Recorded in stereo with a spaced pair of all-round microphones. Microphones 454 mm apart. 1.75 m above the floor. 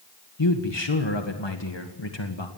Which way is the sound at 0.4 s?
70° left (ahead or behind).